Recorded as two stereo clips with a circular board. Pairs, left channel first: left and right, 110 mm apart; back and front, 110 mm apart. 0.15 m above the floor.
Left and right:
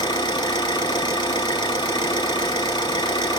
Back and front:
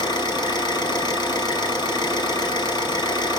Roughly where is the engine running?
Behind left.